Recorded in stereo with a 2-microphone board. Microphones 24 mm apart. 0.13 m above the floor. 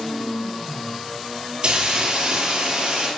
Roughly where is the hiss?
Right.